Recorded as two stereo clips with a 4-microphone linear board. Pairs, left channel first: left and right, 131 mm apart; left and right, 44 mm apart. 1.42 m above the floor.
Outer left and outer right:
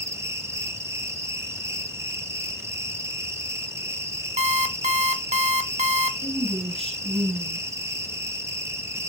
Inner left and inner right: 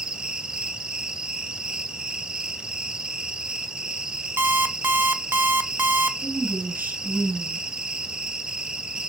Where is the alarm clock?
60° right (ahead or behind), 1.1 m.